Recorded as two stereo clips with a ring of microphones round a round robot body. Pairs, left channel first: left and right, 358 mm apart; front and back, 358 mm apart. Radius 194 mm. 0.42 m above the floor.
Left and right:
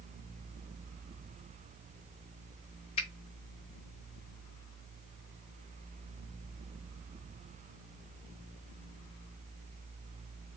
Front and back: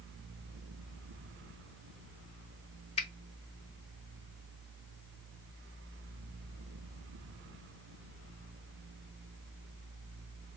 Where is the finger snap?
45° left, 0.5 m.